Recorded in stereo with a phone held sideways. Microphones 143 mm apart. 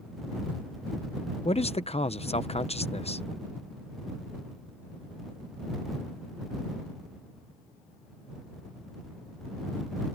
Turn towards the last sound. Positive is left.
turn(degrees=50)  # may be behind; listen again after turning